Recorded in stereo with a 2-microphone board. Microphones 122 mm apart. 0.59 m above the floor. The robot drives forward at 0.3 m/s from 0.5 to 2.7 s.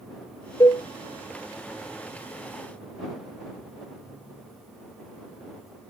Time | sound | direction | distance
0.6 | a cowbell | 30° left (ahead or behind) | 0.5 m